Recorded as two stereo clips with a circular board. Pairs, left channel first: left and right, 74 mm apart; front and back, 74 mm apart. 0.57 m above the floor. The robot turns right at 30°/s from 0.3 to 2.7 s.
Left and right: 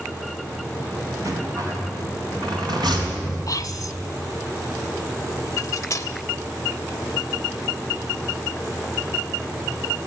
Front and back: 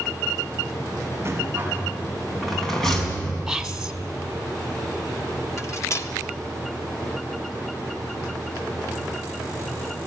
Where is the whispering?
95° left, 1.2 m.